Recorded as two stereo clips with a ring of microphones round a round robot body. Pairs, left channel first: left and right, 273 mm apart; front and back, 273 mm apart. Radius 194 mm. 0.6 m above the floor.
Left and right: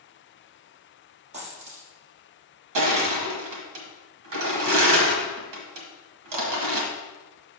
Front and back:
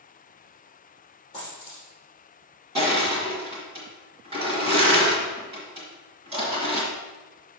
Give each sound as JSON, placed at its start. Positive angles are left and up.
{"t": 1.3, "sound": "a dropped coin", "azimuth_deg": -75, "distance_m": 3.0}
{"t": 2.8, "sound": "crushing", "azimuth_deg": -105, "distance_m": 1.2}